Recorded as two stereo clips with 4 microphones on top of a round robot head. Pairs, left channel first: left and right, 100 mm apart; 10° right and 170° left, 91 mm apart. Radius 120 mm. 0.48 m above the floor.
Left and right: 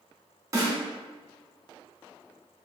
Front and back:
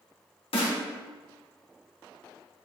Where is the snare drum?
30° right, 2 m.